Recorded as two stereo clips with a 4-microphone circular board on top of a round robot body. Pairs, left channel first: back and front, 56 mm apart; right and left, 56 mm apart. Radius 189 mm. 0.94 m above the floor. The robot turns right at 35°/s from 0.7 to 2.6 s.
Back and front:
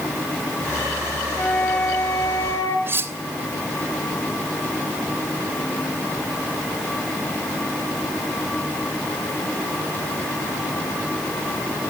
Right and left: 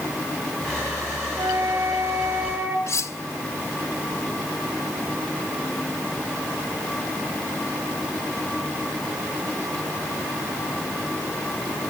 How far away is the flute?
About 1.8 m.